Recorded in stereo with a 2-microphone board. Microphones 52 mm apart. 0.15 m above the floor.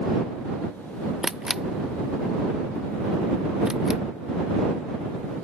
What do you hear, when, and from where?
1.2 s a camera shutter: 10° right (ahead or behind)